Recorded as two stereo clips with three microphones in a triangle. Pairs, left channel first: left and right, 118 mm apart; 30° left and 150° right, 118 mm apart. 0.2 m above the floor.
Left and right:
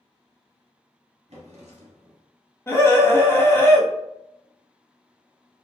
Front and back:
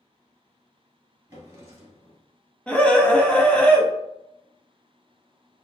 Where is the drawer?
85° right, 1.6 m.